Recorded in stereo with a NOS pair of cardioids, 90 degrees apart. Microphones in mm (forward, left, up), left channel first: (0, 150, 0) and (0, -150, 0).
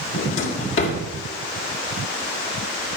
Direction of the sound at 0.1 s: 40° left.